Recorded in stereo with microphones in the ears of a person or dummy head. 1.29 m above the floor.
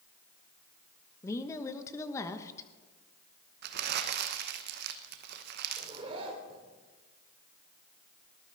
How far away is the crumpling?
About 0.9 m.